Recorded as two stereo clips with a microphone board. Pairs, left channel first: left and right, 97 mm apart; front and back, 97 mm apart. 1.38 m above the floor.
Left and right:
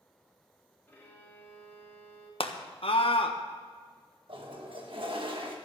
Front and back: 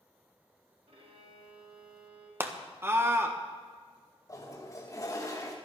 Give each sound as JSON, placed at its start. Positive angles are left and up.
{"t": 0.9, "sound": "a violin", "azimuth_deg": 160, "distance_m": 3.0}
{"t": 2.4, "sound": "a scream", "azimuth_deg": 110, "distance_m": 1.4}
{"t": 4.3, "sound": "a toilet flushing", "azimuth_deg": -60, "distance_m": 1.7}